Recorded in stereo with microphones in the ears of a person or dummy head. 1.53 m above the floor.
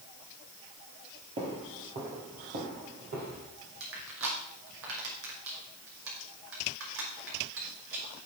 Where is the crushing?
70° right (ahead or behind), 5 m.